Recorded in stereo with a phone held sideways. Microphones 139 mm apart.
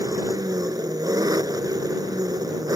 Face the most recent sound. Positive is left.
turn(degrees=-25)  # may be behind; listen again after turning